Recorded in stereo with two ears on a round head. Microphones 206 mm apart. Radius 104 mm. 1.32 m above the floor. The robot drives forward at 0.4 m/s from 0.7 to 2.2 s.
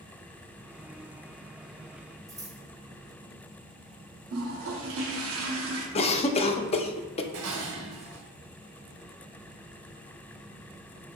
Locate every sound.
2.3 s scissors: 15° right (ahead or behind), 1.6 m
4.3 s a toilet flushing: 70° right (ahead or behind), 0.9 m
6.0 s a cough: 30° left (ahead or behind), 0.5 m
7.3 s dishes clattering: 60° right (ahead or behind), 0.8 m